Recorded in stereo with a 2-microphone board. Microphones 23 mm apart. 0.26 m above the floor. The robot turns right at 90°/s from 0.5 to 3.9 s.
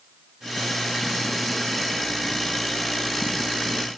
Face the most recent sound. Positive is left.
No sound to turn to.